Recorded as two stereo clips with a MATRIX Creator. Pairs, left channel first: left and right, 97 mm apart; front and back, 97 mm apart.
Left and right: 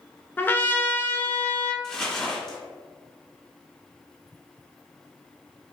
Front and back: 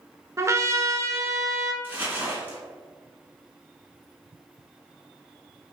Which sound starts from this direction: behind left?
A trumpet, at 0.4 s.